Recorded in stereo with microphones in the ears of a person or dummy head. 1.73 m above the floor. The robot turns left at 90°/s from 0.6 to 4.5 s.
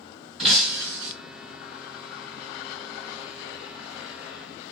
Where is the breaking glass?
Straight ahead, 1.6 m; by 1.1 s 50° right, 1.6 m.